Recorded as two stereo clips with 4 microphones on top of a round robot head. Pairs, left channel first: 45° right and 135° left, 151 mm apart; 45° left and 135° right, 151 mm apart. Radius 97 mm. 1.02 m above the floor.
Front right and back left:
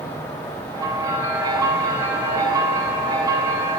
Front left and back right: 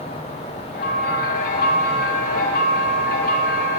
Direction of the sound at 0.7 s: 70° left.